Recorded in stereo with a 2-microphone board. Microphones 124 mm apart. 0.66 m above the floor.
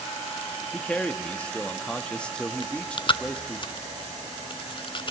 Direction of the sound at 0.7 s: 10° left (ahead or behind).